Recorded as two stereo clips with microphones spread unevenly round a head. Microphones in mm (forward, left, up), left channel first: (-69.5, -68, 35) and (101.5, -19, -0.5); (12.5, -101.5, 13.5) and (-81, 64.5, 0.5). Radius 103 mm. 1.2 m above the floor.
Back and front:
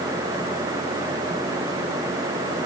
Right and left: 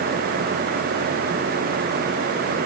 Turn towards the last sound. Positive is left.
No sound to turn to.